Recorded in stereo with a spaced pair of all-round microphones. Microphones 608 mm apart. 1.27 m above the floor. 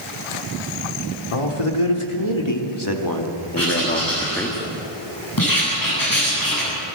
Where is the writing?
35° left (ahead or behind), 9.5 m.